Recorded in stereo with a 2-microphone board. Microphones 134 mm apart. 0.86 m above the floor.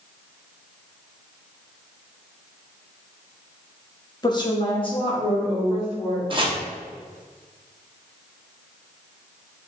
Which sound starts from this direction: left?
A woman speaking, at 4.2 s.